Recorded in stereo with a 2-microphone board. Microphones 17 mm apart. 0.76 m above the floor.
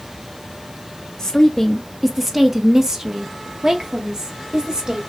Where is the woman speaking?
30° left (ahead or behind), 0.7 m; by 5.0 s 50° right (ahead or behind), 1.9 m.